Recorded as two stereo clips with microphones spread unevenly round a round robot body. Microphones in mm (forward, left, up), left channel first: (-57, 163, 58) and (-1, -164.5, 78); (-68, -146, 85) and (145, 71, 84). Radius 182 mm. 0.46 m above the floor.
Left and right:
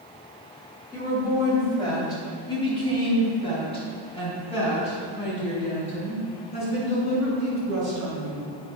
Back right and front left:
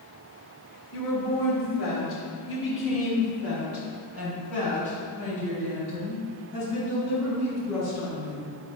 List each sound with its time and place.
0.9 s a woman speaking: straight behind, 3 m; by 8.5 s 170° left, 8 m